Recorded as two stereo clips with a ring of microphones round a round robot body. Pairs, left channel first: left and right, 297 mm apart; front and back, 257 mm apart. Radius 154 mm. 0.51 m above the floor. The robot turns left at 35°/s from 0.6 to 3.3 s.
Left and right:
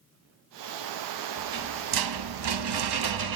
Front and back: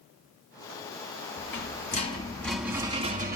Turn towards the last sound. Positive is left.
turn(degrees=-115)